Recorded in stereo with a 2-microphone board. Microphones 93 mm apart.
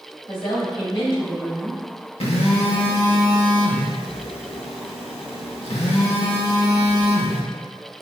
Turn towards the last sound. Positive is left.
turn(degrees=80)